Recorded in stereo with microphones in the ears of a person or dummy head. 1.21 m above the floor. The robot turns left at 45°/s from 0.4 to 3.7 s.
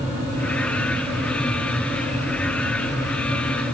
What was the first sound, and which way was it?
Only background noise.